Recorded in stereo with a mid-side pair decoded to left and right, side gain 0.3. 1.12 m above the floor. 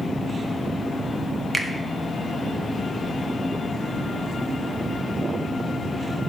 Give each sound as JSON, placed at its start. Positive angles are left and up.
{"t": 1.5, "sound": "a finger snap", "azimuth_deg": -25, "distance_m": 1.1}